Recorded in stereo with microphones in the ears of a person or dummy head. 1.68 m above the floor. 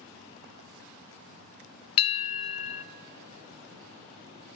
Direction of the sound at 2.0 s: 30° left (ahead or behind).